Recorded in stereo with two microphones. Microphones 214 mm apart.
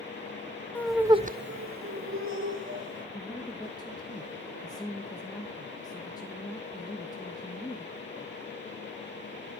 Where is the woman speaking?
20° left (ahead or behind), 1.3 m.